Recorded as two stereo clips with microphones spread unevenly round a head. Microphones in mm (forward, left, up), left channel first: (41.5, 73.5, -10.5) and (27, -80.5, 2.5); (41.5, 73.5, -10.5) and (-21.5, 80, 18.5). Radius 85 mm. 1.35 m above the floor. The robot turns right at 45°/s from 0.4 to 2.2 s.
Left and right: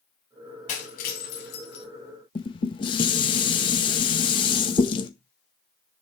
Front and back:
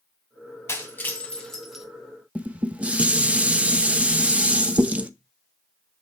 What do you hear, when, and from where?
0.7 s breaking glass: 50° left, 3 m; by 1.9 s 100° left, 3 m
2.4 s dishes clattering: 140° left, 0.8 m